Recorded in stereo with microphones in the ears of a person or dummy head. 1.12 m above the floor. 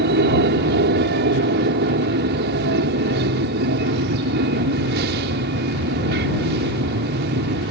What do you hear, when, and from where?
0.0 s an aircraft: 50° right (ahead or behind)